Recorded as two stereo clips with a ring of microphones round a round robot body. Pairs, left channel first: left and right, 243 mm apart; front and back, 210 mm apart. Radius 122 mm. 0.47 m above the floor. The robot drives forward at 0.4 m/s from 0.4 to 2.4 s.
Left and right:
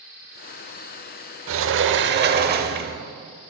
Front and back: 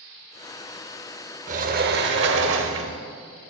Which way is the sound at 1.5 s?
120° right.